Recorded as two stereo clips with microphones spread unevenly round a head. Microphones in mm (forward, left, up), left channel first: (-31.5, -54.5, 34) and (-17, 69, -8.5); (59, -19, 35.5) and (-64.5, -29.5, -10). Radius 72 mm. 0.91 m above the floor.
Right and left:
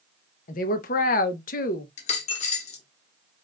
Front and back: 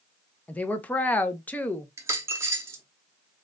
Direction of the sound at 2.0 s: 95° right.